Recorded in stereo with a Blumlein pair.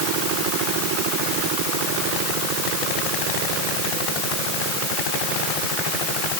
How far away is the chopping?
No chopping in this recording.